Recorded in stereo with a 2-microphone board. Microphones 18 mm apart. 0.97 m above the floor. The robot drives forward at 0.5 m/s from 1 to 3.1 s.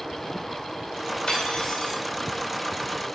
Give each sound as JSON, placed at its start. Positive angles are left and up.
{"t": 1.3, "sound": "cutlery clinking", "side_deg": 75, "distance_m": 2.5}